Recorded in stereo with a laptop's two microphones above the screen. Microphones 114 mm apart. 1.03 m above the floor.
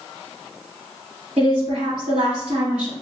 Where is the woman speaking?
80° right, 2.5 m.